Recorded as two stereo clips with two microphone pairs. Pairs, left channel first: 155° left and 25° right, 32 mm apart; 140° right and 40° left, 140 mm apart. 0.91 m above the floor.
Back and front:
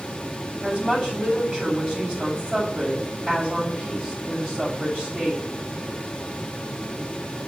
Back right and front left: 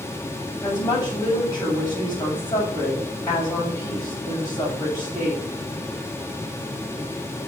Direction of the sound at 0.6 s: 75° right.